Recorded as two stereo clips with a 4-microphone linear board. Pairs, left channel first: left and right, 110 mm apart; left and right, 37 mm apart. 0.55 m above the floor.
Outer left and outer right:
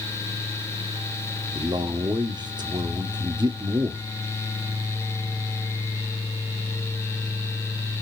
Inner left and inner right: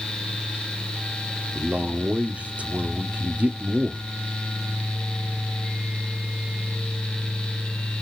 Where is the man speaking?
40° right (ahead or behind), 1.2 m.